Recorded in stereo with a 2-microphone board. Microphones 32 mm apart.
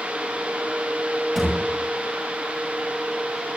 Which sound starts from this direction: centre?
A thud, at 1.4 s.